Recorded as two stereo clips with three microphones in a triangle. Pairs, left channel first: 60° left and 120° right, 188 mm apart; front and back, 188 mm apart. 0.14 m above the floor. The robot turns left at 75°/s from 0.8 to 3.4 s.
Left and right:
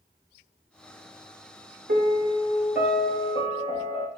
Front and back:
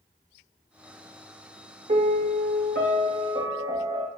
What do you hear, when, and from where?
1.9 s a piano: 135° right, 0.7 m; by 4.1 s 110° left, 0.7 m